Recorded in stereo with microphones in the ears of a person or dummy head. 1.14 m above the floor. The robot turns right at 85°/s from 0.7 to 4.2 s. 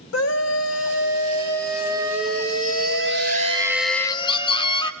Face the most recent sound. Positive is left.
turn(degrees=30)